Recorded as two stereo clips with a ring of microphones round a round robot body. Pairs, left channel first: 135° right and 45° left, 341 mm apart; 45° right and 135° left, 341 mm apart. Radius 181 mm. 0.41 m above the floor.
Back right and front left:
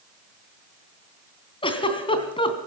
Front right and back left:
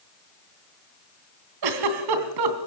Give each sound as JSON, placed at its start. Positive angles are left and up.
{"t": 1.6, "sound": "a giggle", "azimuth_deg": 150, "distance_m": 3.0}